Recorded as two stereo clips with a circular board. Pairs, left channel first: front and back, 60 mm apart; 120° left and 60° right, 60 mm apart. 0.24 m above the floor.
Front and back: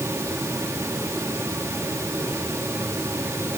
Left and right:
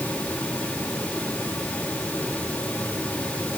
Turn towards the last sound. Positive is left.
No sound to turn to.